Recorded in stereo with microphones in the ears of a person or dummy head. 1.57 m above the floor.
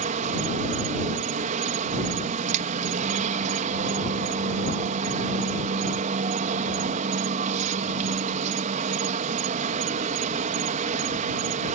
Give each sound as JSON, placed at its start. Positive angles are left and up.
{"t": 0.0, "sound": "an insect", "side_deg": -40}